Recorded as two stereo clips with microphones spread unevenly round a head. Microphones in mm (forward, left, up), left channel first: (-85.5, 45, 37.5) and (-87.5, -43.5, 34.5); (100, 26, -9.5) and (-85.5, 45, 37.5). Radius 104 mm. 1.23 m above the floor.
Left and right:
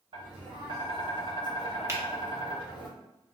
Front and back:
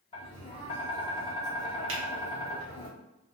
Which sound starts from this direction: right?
Tapping, at 0.1 s.